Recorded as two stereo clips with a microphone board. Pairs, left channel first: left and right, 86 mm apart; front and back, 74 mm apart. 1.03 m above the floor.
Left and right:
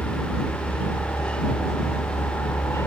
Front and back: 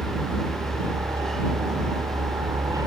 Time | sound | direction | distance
0.0 | a helicopter | 150° left | ?